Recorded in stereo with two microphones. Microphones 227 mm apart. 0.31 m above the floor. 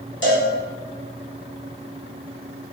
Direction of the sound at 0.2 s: 55° left (ahead or behind).